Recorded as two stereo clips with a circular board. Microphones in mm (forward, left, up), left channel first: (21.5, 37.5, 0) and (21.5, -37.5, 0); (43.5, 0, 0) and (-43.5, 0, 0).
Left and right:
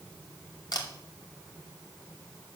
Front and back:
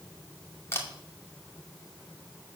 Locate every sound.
0.7 s a camera shutter: 60° left, 2.5 m